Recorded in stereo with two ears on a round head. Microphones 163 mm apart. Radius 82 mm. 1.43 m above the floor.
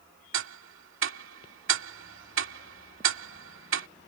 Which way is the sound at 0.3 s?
80° right.